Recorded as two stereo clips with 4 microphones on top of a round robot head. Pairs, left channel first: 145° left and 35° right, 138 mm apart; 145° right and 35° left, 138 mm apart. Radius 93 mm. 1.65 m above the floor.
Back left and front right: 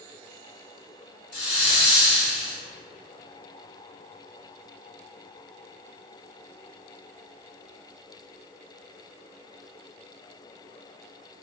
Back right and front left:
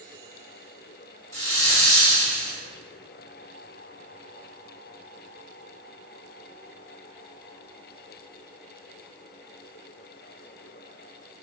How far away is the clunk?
No clunk in this recording.